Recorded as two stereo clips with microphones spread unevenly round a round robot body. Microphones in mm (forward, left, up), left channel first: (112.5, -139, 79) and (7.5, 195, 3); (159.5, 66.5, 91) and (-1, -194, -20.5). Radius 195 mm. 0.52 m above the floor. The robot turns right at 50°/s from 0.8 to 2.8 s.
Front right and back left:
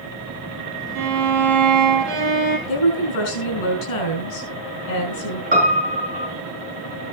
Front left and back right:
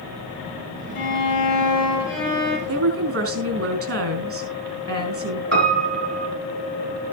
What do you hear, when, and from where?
0.9 s a violin: 80° left, 3.5 m; by 2.6 s 165° left, 3.5 m
2.7 s a woman speaking: 90° right, 4 m; by 5.4 s 85° right, 4 m
5.5 s a piano: 175° left, 4 m